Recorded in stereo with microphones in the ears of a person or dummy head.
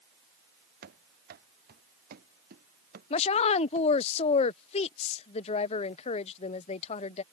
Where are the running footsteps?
50° right (ahead or behind).